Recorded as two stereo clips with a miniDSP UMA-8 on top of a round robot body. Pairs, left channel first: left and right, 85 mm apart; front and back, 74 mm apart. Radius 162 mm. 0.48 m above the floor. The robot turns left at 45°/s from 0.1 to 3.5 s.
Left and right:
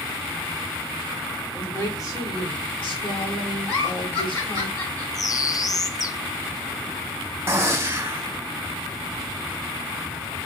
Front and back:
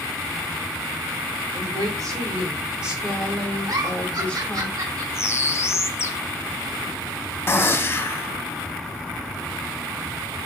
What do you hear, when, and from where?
1.5 s a woman speaking: 160° left, 2.5 m; by 4.7 s 70° left, 2.5 m
3.7 s a giggle: 150° left, 2.5 m
5.1 s a bird: 50° left, 0.6 m
7.5 s a gunshot: 40° right, 1.0 m